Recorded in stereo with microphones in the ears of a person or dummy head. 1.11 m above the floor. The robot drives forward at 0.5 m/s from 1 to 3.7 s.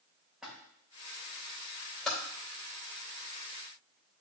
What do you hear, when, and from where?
0.4 s a splash: 5° right (ahead or behind), 2.0 m
2.0 s typing on a keyboard: 5° left (ahead or behind), 3 m